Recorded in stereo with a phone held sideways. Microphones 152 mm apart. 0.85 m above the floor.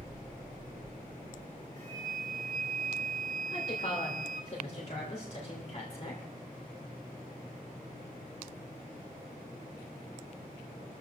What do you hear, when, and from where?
1.8 s a flute: 80° right, 2.5 m
3.5 s a woman speaking: 45° left (ahead or behind), 3.5 m